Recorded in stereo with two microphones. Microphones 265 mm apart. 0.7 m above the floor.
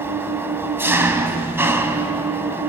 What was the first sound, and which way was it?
An engine running, 10° right (ahead or behind).